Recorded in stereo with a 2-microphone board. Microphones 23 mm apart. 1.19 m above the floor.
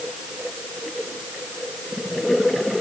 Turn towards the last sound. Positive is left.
No sound to turn to.